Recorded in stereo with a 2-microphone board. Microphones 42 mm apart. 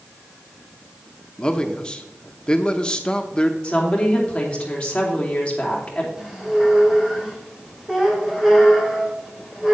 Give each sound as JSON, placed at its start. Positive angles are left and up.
{"t": 1.4, "sound": "a man speaking", "side_deg": 20, "distance_m": 0.8}
{"t": 3.6, "sound": "a woman speaking", "side_deg": 25, "distance_m": 3.0}
{"t": 6.2, "sound": "a squeak", "side_deg": -10, "distance_m": 2.5}